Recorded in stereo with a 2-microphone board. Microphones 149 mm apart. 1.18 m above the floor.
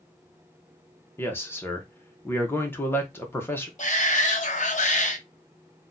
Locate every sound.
1.2 s a man speaking: 15° left (ahead or behind), 0.9 m
3.8 s a shout: 55° left (ahead or behind), 1.0 m